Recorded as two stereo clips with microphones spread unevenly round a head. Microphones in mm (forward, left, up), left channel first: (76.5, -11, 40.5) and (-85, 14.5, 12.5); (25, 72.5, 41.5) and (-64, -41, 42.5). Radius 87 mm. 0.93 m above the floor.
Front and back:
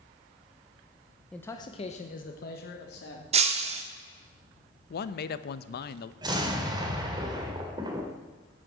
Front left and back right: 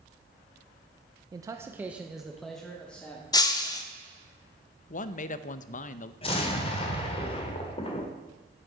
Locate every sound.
1.3 s a man speaking: 110° right, 0.7 m; by 3.2 s 30° right, 1.8 m
3.3 s breaking glass: 115° left, 1.1 m
4.9 s a man speaking: 20° left, 0.6 m
6.2 s an explosion: 105° left, 1.8 m